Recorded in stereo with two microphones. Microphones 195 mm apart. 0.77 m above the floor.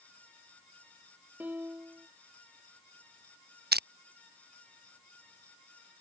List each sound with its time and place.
1.4 s a piano: 10° right (ahead or behind)
3.7 s crushing: 55° right (ahead or behind)